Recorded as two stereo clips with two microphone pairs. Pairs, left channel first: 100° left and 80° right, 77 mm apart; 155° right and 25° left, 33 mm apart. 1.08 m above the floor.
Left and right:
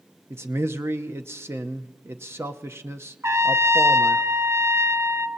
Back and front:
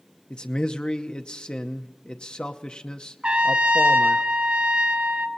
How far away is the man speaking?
About 0.7 m.